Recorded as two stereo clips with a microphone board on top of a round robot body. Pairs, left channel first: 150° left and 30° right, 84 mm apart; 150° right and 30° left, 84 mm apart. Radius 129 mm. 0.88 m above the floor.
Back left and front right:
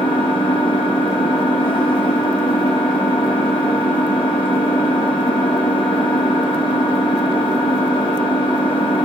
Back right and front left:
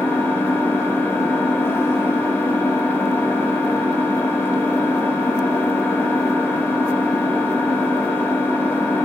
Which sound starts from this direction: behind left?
An engine running, at 0.0 s.